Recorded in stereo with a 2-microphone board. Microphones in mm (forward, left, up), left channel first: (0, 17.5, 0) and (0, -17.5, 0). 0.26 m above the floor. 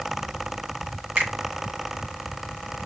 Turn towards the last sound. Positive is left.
turn(degrees=-50)  # may be behind; listen again after turning